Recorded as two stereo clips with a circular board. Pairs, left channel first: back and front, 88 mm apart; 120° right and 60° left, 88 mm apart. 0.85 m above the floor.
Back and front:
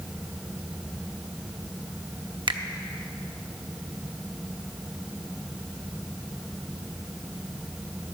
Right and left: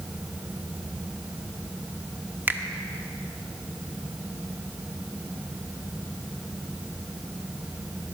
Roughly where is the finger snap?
Ahead.